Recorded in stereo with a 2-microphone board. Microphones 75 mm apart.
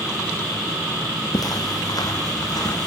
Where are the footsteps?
60° left (ahead or behind), 2.5 m.